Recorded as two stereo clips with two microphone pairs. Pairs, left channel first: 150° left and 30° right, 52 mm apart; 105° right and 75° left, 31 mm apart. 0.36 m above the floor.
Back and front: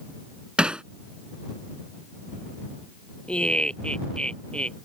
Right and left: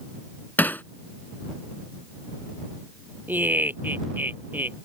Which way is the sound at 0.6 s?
105° right.